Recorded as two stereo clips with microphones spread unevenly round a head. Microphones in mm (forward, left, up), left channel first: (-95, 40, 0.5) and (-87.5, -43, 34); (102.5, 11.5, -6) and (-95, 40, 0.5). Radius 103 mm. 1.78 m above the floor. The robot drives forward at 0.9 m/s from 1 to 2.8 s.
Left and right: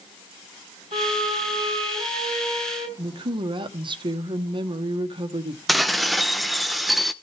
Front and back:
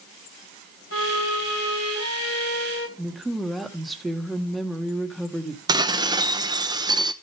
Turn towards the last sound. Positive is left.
turn(degrees=-140)